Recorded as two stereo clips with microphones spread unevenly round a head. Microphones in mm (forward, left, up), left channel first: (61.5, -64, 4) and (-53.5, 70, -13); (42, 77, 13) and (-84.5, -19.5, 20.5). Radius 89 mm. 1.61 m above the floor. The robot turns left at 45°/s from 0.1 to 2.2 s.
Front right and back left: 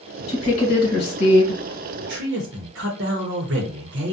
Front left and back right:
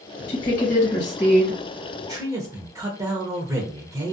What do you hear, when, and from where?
0.3 s a woman speaking: 5° left, 1.3 m; by 1.6 s 55° right, 1.3 m
2.0 s a man speaking: 155° left, 0.7 m; by 4.1 s 150° left, 0.7 m